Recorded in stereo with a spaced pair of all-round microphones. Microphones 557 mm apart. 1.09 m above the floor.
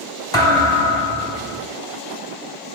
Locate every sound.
0.3 s a thud: 5° left (ahead or behind), 3 m